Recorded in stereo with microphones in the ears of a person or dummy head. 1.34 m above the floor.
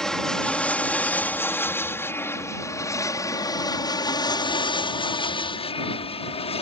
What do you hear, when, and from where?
0.0 s an aircraft: 5° left (ahead or behind); by 6.6 s 30° left (ahead or behind)